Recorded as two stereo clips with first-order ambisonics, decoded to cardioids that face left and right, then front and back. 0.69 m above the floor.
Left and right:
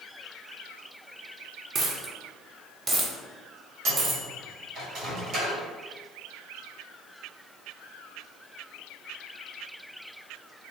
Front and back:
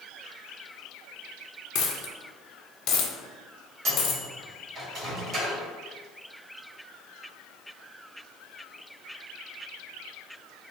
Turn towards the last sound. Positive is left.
turn(degrees=-130)